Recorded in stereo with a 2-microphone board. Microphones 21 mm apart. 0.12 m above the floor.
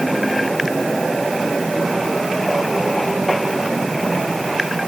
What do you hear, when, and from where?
Only background noise.